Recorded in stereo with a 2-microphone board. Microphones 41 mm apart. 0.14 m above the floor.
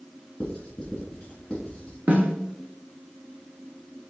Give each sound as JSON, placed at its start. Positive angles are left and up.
{"t": 0.4, "sound": "writing", "side_deg": 25, "distance_m": 3.5}
{"t": 2.1, "sound": "a snare drum", "side_deg": -50, "distance_m": 1.9}